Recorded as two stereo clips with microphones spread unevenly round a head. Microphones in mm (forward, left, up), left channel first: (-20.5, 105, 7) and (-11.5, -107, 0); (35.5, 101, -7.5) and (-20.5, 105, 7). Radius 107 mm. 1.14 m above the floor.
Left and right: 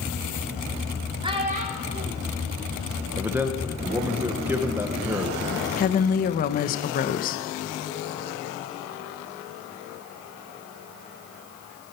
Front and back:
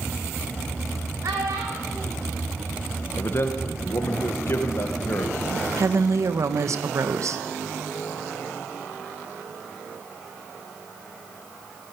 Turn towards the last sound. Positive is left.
turn(degrees=145)